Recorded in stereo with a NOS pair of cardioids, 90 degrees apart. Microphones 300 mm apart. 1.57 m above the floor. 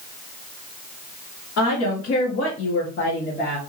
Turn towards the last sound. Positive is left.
turn(degrees=25)